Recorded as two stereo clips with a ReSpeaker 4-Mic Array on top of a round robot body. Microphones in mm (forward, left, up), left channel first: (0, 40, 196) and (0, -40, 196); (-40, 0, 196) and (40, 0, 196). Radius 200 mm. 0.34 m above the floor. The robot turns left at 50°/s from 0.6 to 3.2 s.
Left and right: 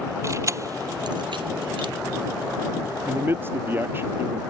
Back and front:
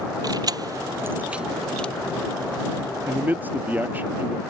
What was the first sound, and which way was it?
Keys jangling, 40° right.